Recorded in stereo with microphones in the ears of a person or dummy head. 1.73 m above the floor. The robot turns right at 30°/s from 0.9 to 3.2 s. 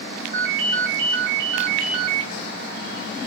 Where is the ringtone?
135° right, 2.5 m; by 2.3 s 95° right, 2.5 m.